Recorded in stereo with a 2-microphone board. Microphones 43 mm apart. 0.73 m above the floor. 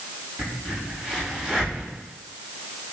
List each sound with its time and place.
0.4 s a crack: 15° right (ahead or behind), 4 m